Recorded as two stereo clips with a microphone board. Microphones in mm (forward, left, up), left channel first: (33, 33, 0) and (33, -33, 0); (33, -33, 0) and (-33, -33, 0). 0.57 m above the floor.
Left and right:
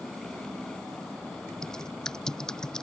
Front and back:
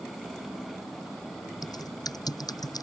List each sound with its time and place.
1.6 s typing on a keyboard: 10° left